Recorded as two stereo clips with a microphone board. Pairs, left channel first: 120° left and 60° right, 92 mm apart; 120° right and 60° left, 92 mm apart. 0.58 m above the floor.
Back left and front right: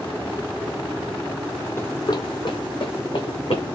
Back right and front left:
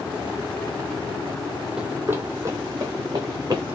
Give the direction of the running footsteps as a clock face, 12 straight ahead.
8 o'clock.